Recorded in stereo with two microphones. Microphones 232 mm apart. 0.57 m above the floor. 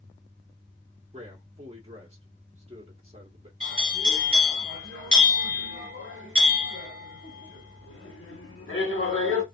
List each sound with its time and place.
1.1 s a man speaking: 25° right (ahead or behind), 1.4 m
3.6 s a bell: 65° left (ahead or behind), 1.8 m